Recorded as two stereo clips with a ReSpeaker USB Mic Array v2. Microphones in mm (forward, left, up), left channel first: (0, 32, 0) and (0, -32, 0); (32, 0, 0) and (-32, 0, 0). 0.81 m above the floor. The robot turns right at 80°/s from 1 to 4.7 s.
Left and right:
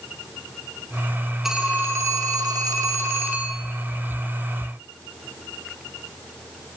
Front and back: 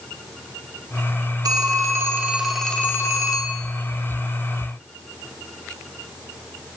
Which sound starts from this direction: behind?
A phone ringing, at 1.4 s.